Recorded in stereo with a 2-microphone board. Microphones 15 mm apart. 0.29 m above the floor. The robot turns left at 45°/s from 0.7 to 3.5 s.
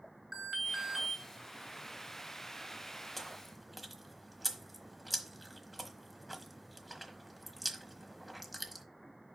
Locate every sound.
0.3 s an alarm: 30° right (ahead or behind), 2.5 m; by 1.2 s 15° right (ahead or behind), 2.5 m
3.2 s chewing: 5° left (ahead or behind), 1.2 m; by 8.8 s 5° right (ahead or behind), 1.2 m